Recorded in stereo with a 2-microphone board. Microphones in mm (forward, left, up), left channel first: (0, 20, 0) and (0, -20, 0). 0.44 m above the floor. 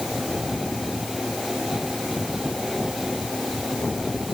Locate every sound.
Only background noise.